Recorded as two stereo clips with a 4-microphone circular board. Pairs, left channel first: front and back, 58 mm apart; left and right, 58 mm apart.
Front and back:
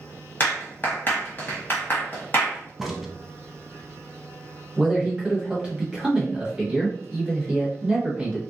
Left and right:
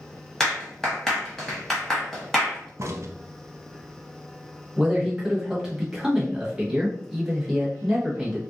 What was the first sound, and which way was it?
A clap, 10° left.